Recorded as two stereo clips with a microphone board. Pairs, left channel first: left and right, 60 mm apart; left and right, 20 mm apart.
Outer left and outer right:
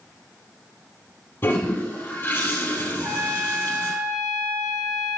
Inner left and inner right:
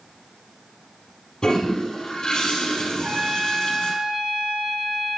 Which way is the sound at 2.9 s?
75° right (ahead or behind).